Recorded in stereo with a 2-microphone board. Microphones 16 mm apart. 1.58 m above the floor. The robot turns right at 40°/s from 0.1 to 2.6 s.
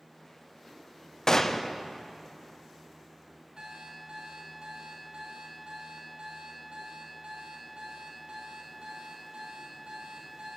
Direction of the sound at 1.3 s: 35° left (ahead or behind).